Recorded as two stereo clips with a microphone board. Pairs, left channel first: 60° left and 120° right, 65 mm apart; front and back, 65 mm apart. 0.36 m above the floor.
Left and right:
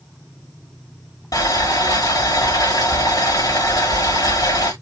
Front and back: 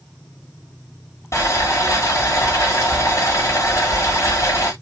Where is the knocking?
No knocking in this recording.